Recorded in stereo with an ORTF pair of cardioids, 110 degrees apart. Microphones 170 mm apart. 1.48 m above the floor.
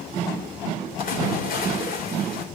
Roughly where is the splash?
Ahead left.